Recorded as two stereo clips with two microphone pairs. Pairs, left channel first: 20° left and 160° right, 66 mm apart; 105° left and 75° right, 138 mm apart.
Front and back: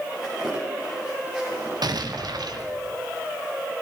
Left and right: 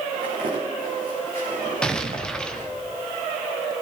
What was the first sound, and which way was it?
Footsteps, 85° right.